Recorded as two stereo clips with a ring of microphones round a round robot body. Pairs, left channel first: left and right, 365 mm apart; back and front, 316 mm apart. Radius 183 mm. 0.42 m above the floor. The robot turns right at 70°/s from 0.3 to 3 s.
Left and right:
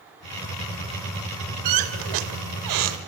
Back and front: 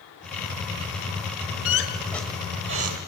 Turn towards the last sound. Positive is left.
turn(degrees=-35)